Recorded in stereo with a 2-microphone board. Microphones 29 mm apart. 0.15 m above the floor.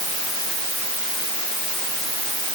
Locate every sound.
Only background noise.